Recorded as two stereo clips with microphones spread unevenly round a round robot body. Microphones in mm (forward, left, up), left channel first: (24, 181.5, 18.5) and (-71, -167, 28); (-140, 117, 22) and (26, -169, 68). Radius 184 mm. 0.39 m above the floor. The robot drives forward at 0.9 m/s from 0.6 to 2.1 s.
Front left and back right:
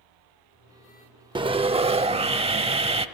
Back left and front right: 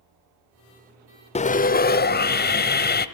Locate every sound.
1.4 s sawing: straight behind, 0.5 m